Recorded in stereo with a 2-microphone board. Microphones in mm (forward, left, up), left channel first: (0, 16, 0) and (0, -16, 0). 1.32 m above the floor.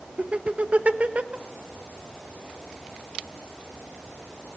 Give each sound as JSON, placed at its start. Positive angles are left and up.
{"t": 0.2, "sound": "laughter", "side_deg": -45, "distance_m": 1.6}